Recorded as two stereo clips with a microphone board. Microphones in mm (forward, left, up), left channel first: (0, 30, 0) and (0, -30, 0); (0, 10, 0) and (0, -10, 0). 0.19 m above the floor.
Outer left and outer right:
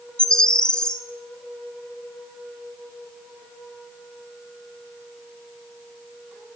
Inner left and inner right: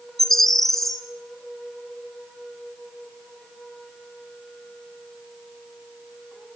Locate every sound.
0.2 s a bird: 15° left (ahead or behind), 0.9 m